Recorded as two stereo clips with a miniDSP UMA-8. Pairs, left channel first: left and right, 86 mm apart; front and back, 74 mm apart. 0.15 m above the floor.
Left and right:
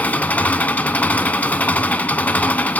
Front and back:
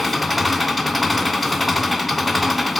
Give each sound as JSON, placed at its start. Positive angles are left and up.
{"t": 0.0, "sound": "an engine running", "azimuth_deg": 90, "distance_m": 0.7}